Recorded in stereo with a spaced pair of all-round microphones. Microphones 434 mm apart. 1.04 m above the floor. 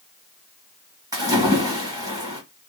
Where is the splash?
10° right (ahead or behind), 1.5 m.